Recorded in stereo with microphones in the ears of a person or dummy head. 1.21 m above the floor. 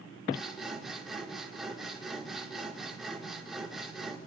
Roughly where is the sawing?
Centre.